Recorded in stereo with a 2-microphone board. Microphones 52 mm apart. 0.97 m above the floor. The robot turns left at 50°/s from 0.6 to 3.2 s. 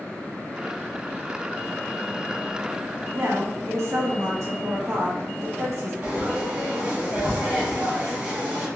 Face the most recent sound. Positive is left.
turn(degrees=-30)  # may be behind; listen again after turning